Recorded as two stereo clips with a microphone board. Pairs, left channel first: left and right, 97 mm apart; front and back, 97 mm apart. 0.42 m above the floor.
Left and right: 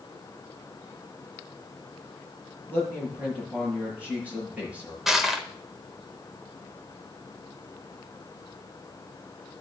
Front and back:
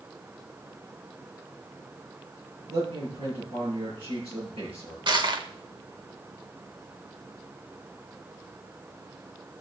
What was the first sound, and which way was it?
A man speaking, 165° right.